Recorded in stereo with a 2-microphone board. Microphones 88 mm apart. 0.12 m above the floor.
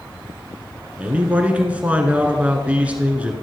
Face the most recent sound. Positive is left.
turn(degrees=-15)  # may be behind; listen again after turning